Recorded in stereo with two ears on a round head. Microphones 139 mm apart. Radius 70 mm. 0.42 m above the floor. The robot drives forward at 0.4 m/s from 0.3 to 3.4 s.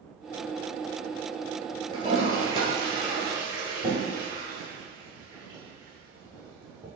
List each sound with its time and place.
1.9 s a toilet flushing: 35° right (ahead or behind), 1.6 m; by 6.9 s 25° right (ahead or behind), 2 m